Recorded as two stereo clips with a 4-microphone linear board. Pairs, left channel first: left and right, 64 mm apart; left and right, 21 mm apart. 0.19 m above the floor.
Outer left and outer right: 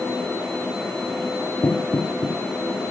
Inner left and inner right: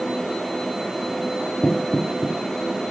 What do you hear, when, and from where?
1.6 s knocking: 55° left (ahead or behind), 3 m